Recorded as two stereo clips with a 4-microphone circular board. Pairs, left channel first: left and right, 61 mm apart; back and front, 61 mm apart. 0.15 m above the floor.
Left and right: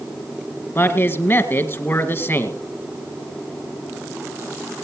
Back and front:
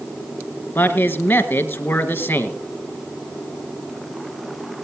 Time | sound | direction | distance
0.8 | a man speaking | 130° left | 2 m